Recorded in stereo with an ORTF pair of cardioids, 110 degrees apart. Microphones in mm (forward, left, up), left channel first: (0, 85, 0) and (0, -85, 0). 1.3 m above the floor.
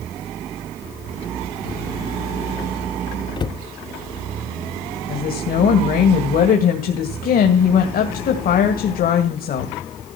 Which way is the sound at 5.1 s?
60° left.